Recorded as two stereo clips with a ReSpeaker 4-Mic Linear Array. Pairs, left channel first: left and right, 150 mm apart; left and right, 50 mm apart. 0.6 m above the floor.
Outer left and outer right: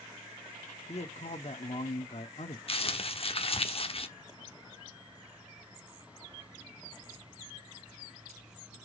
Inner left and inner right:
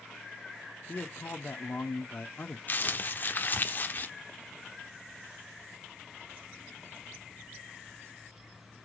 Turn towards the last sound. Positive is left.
turn(degrees=40)  # may be behind; listen again after turning